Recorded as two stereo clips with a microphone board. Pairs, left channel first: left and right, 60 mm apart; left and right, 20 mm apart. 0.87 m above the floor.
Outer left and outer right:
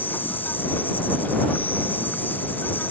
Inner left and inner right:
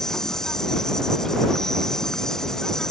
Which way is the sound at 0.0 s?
30° left (ahead or behind).